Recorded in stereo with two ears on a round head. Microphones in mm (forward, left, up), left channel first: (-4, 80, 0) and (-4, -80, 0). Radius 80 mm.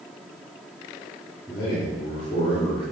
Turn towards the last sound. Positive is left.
turn(degrees=30)  # may be behind; listen again after turning